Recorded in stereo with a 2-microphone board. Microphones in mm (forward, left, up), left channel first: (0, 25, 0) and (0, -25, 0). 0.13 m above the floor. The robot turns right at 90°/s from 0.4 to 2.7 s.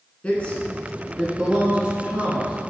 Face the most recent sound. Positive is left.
turn(degrees=-20)  # may be behind; listen again after turning